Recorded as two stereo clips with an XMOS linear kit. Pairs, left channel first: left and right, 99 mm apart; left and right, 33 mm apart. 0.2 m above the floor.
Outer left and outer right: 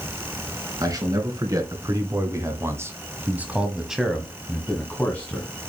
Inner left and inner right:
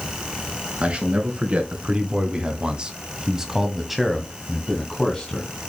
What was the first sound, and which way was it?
A man speaking, 40° right (ahead or behind).